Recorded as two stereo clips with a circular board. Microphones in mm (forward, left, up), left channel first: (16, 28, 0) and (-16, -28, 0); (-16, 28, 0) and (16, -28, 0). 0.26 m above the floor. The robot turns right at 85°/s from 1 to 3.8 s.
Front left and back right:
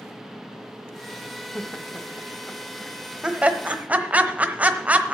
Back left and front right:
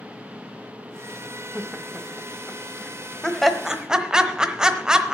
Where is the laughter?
50° left, 0.9 m; by 5.1 s 120° right, 0.9 m.